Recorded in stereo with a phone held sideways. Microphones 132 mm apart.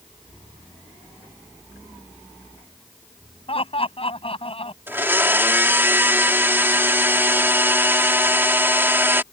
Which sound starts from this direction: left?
Laughter, at 3.5 s.